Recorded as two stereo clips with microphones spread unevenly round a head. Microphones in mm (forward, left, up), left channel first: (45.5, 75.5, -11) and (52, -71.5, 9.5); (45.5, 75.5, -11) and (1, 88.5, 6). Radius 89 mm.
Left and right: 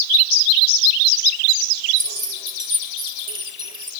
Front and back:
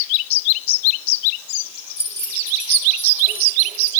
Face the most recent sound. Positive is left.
turn(degrees=-35)